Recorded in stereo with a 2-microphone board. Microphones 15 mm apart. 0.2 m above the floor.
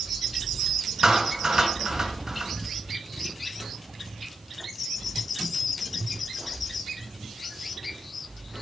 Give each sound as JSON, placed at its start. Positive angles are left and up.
{"t": 1.0, "sound": "a clap", "side_deg": -45, "distance_m": 2.5}